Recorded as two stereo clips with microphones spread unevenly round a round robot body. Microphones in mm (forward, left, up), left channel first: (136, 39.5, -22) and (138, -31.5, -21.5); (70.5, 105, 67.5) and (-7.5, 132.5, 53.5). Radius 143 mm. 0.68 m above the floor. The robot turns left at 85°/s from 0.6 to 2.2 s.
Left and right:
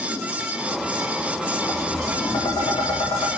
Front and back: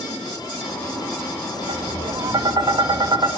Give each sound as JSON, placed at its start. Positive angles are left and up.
{"t": 1.7, "sound": "tapping", "azimuth_deg": 170, "distance_m": 1.7}